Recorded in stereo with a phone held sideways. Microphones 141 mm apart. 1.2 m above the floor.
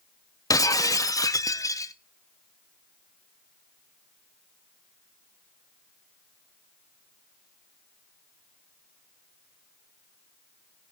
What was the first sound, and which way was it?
Breaking glass, 25° left (ahead or behind).